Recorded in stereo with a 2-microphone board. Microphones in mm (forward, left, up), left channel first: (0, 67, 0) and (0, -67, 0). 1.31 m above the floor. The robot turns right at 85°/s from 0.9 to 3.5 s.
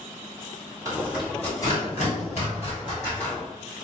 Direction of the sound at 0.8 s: 25° right (ahead or behind).